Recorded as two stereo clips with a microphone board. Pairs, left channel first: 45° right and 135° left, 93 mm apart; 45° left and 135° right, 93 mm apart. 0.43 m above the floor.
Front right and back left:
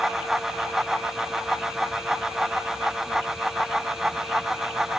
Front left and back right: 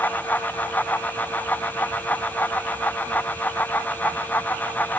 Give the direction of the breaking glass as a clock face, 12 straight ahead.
No breaking glass in this recording.